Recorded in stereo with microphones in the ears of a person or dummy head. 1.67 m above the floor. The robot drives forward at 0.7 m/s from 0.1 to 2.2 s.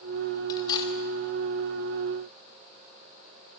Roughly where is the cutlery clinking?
Left.